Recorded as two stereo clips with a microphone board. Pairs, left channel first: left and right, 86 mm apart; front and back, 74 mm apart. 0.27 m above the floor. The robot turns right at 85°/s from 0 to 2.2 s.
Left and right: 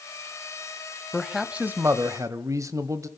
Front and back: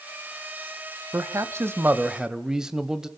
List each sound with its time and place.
1.1 s a man speaking: 165° left, 1.1 m; by 3.1 s 100° right, 1.1 m